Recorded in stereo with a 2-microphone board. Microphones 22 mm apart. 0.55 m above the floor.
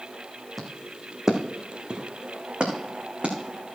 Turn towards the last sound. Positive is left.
turn(degrees=-60)  # may be behind; listen again after turning